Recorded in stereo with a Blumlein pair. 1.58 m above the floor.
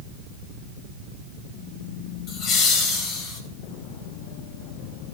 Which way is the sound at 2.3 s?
35° left.